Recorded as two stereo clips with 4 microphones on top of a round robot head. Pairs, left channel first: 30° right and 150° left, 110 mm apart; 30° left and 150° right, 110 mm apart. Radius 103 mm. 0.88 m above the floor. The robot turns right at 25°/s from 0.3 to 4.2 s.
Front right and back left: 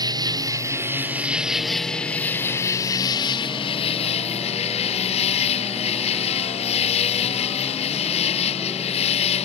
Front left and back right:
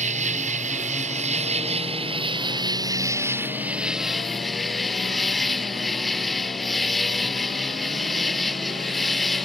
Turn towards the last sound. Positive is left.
turn(degrees=-60)